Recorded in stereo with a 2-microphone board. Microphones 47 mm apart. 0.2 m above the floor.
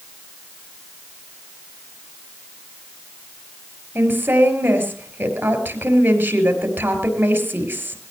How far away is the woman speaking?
About 4.5 m.